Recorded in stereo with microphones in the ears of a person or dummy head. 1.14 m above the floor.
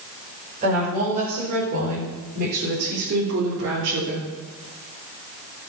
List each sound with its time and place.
0.6 s a woman speaking: 35° right (ahead or behind), 5.5 m; by 4.3 s 65° right (ahead or behind), 3 m